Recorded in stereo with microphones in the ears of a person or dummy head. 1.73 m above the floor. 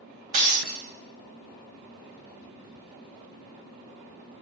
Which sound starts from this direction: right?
Breaking glass, at 0.3 s.